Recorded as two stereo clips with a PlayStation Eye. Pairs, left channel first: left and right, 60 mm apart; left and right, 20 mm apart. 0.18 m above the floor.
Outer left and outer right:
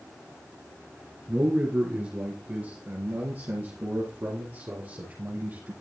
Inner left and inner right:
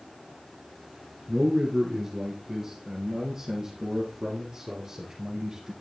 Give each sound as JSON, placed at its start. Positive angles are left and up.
{"t": 1.3, "sound": "a man speaking", "side_deg": -15, "distance_m": 1.7}